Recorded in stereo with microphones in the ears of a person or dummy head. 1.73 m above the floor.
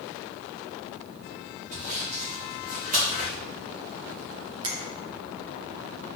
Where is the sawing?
35° right (ahead or behind), 1.5 m.